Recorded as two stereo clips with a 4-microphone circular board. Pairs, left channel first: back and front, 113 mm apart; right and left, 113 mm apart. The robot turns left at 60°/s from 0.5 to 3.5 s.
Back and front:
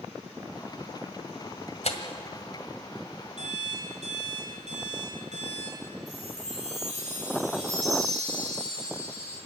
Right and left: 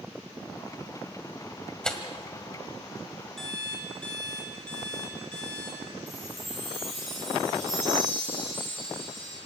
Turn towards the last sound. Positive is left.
turn(degrees=0)